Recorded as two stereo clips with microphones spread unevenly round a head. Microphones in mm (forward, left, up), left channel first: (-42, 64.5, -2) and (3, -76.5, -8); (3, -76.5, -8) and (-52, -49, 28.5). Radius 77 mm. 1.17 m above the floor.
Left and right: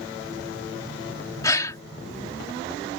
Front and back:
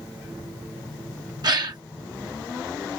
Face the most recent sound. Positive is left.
turn(degrees=175)